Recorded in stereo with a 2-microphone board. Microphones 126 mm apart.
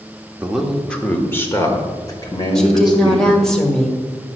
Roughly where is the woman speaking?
Centre.